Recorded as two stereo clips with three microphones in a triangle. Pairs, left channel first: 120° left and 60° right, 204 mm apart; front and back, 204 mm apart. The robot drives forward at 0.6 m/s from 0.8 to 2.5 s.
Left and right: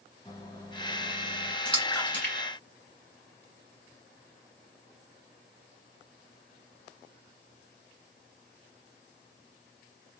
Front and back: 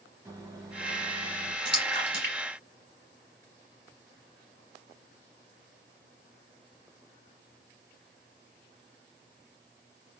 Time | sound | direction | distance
0.2 | a microwave | 130° left | 1.1 m
1.6 | a splash | 155° right | 1.9 m